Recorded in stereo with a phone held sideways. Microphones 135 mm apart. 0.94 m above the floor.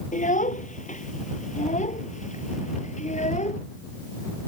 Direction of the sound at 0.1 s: 65° left (ahead or behind).